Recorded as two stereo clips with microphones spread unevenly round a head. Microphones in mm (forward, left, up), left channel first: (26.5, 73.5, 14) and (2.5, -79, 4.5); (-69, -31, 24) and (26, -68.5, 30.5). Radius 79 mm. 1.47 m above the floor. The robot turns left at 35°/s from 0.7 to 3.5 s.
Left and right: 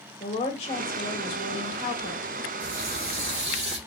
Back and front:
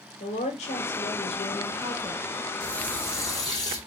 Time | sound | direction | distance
0.2 | a woman speaking | 140° left | 1.7 m
2.6 | a running tap | 120° right | 2.5 m